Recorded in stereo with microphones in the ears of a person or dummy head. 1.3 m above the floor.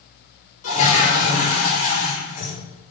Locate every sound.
0.6 s a toilet flushing: 35° left (ahead or behind), 2.5 m